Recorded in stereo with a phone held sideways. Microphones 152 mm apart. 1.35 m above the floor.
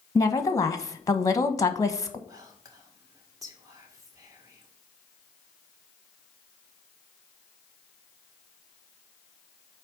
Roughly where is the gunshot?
No gunshot in this recording.